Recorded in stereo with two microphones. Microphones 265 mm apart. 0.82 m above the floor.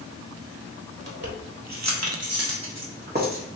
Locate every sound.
1.0 s keys jangling: 60° right (ahead or behind), 1.0 m; by 3.4 s 30° right (ahead or behind), 1.2 m